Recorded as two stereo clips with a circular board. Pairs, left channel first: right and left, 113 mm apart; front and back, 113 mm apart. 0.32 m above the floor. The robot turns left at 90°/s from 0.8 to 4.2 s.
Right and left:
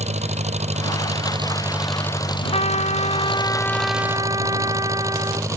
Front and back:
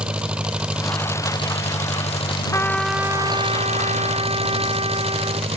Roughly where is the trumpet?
Ahead right.